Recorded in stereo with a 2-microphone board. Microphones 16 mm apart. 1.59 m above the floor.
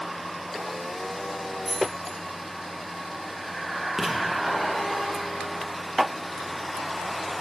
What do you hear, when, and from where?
1.6 s keys jangling: 10° left (ahead or behind), 3.5 m
4.0 s writing: 10° right (ahead or behind), 1.2 m